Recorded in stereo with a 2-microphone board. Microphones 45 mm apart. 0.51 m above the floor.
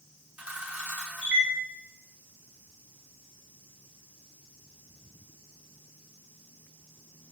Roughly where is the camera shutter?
Right.